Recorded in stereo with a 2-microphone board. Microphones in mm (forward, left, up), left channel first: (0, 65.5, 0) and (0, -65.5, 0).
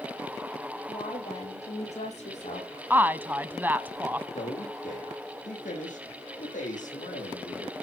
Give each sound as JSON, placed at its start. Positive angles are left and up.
{"t": 0.9, "sound": "a woman speaking", "side_deg": 55, "distance_m": 9.0}
{"t": 2.9, "sound": "a woman speaking", "side_deg": -15, "distance_m": 1.0}
{"t": 4.3, "sound": "a man speaking", "side_deg": 75, "distance_m": 7.0}